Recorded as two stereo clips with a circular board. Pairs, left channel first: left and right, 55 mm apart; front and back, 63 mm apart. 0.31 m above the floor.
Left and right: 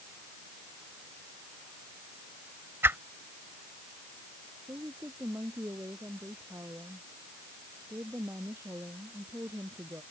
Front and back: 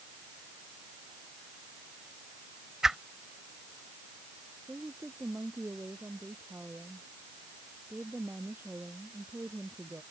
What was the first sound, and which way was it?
A whoosh, 100° right.